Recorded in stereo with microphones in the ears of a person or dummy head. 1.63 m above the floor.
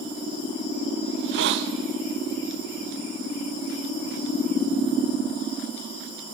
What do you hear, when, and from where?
1.1 s a hiss: 60° right (ahead or behind), 1.4 m